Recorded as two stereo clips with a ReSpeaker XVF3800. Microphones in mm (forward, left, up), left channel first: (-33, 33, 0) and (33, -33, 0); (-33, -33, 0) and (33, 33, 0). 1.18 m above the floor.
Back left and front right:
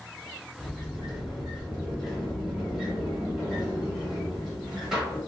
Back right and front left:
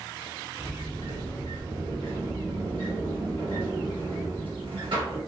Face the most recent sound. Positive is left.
turn(degrees=35)